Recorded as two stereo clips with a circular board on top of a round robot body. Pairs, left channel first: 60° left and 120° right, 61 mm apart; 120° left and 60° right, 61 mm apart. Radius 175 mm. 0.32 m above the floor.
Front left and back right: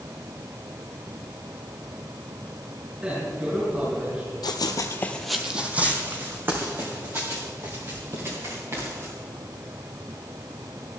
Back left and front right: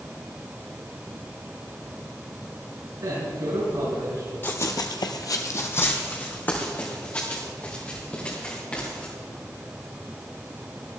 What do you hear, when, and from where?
3.0 s a man speaking: 50° right, 6 m
4.4 s running footsteps: 60° left, 1.0 m; by 9.1 s 170° right, 6.5 m